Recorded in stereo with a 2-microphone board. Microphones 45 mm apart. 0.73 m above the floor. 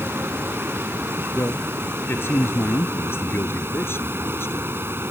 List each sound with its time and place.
0.0 s running water: 60° right (ahead or behind)
1.3 s a man speaking: 60° left (ahead or behind)